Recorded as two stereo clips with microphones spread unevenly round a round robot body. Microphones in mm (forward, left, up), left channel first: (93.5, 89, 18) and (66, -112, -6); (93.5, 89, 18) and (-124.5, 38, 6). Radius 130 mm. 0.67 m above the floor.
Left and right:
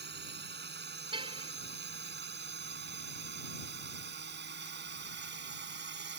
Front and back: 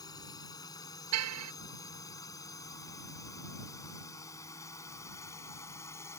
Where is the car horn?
170° right.